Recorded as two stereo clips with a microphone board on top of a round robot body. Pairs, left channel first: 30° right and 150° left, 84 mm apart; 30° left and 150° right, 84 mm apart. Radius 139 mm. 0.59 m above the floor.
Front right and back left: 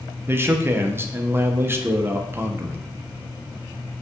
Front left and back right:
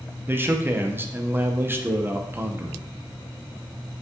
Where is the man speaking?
Straight behind, 0.8 m.